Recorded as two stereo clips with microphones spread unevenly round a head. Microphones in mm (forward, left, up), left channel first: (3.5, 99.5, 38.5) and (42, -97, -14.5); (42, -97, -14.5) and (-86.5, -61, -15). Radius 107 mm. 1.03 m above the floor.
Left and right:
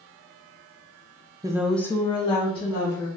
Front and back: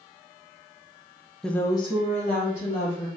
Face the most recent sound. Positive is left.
turn(degrees=35)